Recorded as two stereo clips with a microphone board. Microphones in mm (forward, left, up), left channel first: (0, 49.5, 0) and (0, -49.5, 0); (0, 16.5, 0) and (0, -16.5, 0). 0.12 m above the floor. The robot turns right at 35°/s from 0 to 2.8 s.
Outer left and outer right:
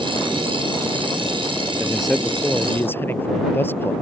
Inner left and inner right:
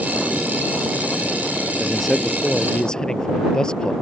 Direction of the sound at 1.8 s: 10° right.